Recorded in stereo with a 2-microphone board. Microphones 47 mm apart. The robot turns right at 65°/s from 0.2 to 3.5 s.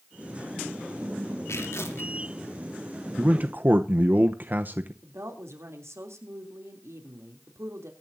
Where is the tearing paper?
85° left, 3 m; by 2.1 s 125° left, 3 m.